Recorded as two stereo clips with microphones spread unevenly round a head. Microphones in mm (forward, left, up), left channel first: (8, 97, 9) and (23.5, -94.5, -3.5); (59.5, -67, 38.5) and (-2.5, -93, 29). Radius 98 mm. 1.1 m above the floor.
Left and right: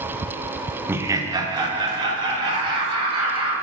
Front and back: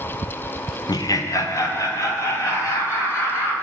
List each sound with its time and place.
0.9 s laughter: 5° right, 0.6 m; by 3.5 s 20° right, 4.5 m